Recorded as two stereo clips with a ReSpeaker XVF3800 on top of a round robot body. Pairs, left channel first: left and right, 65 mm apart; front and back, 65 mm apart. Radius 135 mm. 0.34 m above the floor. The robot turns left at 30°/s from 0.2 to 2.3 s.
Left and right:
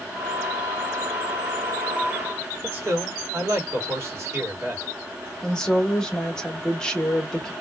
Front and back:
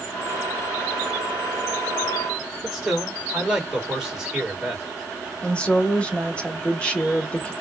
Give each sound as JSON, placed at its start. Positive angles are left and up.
{"t": 2.6, "sound": "a man speaking", "azimuth_deg": -105, "distance_m": 2.0}
{"t": 5.4, "sound": "a woman speaking", "azimuth_deg": 35, "distance_m": 1.2}